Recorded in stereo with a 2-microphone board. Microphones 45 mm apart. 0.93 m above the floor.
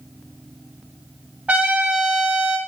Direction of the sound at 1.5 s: 35° right (ahead or behind).